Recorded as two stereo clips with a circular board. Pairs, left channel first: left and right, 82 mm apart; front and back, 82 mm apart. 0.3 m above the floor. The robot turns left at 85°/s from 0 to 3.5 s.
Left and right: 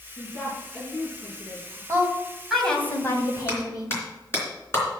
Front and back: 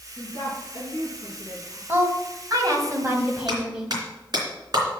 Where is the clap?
150° left, 3.5 m; by 4.8 s 145° left, 3.5 m.